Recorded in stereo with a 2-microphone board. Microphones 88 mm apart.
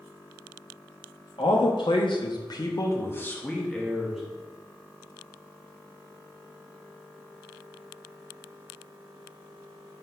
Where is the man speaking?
75° left (ahead or behind), 1.4 m; by 4.2 s 5° right (ahead or behind), 1.4 m.